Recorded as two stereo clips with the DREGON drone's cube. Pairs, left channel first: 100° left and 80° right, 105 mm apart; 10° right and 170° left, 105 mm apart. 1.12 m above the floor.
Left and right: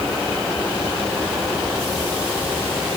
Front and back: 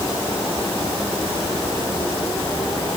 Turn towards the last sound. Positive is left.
No sound to turn to.